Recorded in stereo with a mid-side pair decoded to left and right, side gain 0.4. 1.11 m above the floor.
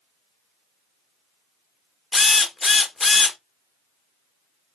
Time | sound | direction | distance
2.1 | a drill | 35° left | 0.9 m